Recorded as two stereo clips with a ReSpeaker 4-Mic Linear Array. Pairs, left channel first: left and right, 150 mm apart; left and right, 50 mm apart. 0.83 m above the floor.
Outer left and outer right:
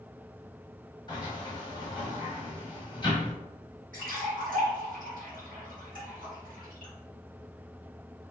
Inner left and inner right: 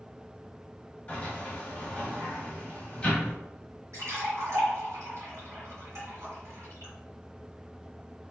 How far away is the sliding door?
About 1.2 m.